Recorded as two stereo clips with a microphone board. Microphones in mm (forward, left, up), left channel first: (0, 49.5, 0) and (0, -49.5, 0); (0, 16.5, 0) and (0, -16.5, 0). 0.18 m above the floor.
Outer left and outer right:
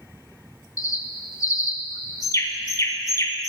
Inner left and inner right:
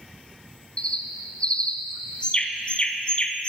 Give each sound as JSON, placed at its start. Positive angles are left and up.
{"t": 0.8, "sound": "a bird", "side_deg": 35, "distance_m": 0.6}